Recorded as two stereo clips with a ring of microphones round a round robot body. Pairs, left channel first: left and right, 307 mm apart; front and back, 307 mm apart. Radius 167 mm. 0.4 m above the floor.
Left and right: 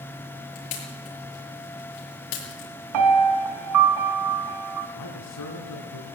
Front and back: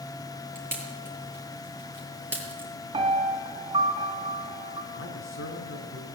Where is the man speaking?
50° left, 5.5 m.